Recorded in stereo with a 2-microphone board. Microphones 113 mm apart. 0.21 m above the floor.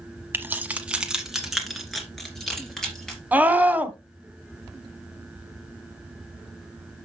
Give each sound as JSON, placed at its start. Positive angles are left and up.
{"t": 0.3, "sound": "keys jangling", "side_deg": -20, "distance_m": 1.0}
{"t": 3.3, "sound": "a scream", "side_deg": -15, "distance_m": 1.0}